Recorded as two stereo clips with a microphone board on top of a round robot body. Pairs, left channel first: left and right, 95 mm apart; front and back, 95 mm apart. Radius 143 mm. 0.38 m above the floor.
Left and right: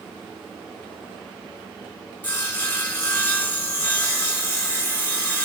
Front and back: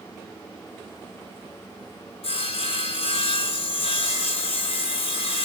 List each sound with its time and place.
2.2 s sawing: 15° left, 0.8 m